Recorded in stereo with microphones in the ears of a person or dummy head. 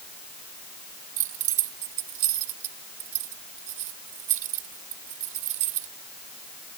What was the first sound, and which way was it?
Keys jangling, 50° right (ahead or behind).